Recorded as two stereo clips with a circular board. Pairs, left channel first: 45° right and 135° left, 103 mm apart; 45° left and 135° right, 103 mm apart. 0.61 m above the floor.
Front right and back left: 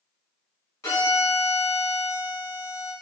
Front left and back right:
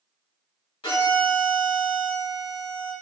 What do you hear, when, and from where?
0.8 s a violin: 15° left, 1.8 m